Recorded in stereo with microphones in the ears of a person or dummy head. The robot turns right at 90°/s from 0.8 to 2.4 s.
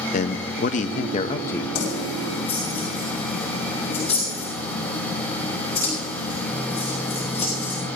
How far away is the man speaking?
About 0.6 m.